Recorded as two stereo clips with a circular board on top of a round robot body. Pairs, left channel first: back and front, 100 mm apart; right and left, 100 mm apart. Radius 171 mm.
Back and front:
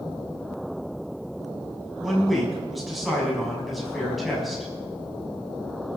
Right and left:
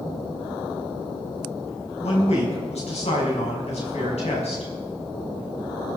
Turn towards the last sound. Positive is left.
turn(degrees=-90)